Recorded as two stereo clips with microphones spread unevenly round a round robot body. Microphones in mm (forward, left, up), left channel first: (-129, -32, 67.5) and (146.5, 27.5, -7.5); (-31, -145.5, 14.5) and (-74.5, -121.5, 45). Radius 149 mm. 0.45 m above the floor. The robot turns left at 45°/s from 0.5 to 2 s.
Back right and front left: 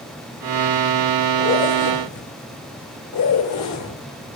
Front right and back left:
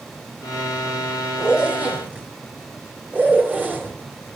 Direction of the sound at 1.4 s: 105° right.